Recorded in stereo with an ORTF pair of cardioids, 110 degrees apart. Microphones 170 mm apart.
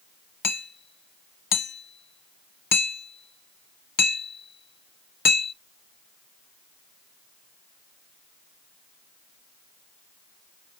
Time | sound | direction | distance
0.4 | hammering | 65° left | 1.1 m